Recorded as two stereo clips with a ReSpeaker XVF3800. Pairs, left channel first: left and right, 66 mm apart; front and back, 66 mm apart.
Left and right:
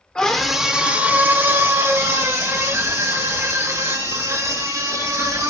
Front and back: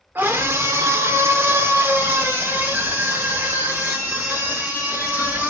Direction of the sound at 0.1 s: 155° left.